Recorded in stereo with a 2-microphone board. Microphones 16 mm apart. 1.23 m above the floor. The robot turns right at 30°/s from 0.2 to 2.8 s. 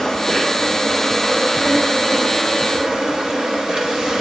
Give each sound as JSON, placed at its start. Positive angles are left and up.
{"t": 0.0, "sound": "an insect", "azimuth_deg": 150, "distance_m": 5.0}